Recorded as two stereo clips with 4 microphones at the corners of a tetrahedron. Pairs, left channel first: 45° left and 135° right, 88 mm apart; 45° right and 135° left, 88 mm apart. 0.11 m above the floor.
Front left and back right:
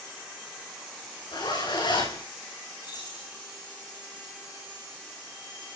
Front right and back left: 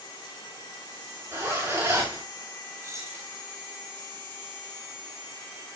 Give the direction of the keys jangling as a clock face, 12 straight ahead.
9 o'clock.